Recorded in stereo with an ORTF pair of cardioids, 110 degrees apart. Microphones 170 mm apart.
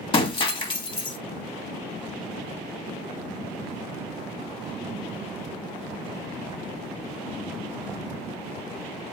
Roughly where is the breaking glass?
Ahead left.